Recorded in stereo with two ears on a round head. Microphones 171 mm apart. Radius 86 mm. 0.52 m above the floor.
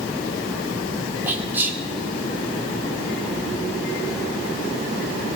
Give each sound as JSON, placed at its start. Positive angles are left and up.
{"t": 1.3, "sound": "whispering", "side_deg": -10, "distance_m": 1.6}